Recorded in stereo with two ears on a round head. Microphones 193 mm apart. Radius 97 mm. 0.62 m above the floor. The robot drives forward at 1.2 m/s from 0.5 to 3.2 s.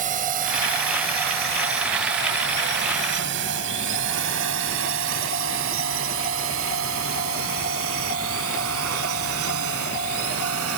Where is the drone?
40° right (ahead or behind); by 10.8 s 75° right (ahead or behind).